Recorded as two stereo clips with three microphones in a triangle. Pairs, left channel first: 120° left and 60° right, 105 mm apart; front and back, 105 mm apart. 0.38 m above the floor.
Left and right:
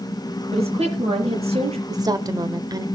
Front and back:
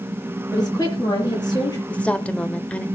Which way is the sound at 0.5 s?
50° right.